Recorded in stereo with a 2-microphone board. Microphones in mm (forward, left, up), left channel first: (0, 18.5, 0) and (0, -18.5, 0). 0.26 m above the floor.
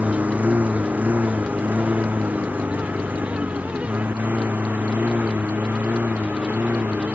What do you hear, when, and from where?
0.0 s a lawn mower: 45° right (ahead or behind); by 7.2 s 60° right (ahead or behind)